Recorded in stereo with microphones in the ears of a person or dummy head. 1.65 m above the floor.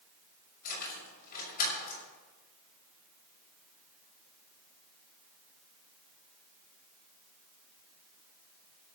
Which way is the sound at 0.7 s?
55° left (ahead or behind).